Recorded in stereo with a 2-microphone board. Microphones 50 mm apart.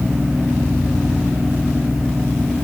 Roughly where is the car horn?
I don't hear a car horn.